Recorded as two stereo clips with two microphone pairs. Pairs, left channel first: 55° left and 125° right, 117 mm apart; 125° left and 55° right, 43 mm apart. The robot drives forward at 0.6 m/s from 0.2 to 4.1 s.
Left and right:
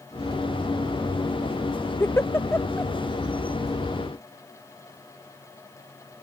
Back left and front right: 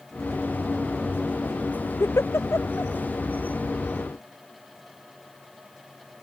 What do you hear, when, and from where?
2.0 s a giggle: 125° left; by 2.9 s 130° left